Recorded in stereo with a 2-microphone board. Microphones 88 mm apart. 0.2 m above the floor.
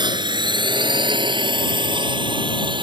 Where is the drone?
60° right (ahead or behind); by 2.8 s 65° right (ahead or behind).